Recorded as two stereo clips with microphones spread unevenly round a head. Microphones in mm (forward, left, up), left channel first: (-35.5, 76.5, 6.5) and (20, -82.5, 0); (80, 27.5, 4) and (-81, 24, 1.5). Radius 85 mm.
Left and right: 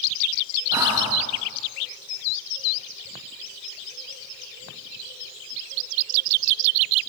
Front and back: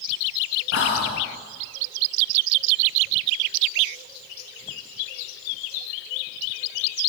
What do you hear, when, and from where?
0.7 s whispering: straight ahead, 2 m